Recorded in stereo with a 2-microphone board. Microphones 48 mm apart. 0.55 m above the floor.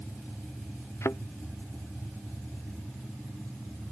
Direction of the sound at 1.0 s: 70° left (ahead or behind).